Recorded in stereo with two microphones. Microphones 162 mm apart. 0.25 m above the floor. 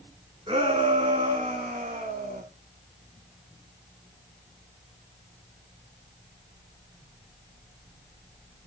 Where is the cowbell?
No cowbell in this recording.